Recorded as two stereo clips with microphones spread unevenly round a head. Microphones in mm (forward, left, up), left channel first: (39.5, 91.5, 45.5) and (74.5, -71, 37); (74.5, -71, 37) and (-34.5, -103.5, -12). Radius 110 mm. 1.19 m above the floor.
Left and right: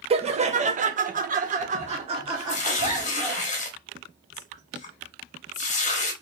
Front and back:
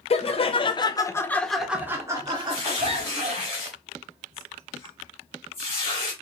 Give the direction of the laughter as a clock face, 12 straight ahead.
1 o'clock.